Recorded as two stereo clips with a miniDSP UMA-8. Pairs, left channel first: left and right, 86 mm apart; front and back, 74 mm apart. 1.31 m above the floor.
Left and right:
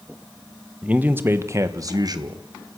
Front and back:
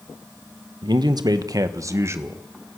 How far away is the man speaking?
About 1.4 m.